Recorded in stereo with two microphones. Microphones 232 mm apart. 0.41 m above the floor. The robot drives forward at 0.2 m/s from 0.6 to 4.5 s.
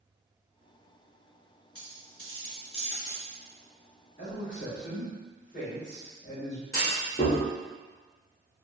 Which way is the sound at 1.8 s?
75° left (ahead or behind).